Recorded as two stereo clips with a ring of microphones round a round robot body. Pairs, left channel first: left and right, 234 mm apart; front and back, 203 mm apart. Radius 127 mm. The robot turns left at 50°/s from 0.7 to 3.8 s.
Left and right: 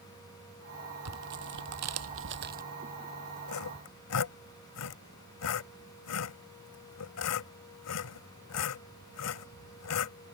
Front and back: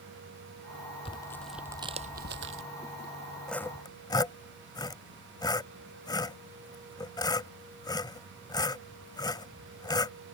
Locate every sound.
1.1 s tearing paper: 70° right; by 2.6 s 145° right
3.5 s sawing: 85° left; by 10.2 s 70° left